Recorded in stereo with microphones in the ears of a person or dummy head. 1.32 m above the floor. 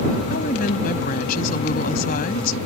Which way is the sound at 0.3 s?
55° left (ahead or behind).